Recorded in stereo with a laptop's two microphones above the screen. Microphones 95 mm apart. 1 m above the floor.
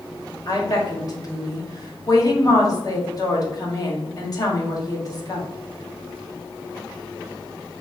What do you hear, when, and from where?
0.5 s a woman speaking: 40° left (ahead or behind), 1.8 m